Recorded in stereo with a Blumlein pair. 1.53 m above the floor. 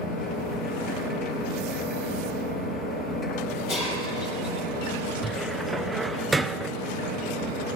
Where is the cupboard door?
5° right, 0.9 m.